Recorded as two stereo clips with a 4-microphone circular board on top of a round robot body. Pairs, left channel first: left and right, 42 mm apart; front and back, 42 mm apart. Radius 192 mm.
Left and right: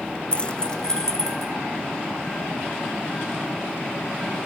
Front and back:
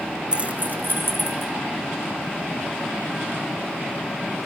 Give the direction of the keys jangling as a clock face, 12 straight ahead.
8 o'clock.